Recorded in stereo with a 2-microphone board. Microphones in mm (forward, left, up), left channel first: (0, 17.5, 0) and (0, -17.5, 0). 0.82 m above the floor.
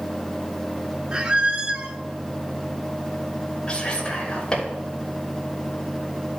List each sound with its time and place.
1.1 s a squeak: 30° right (ahead or behind), 0.8 m
3.7 s whispering: 20° left (ahead or behind), 3 m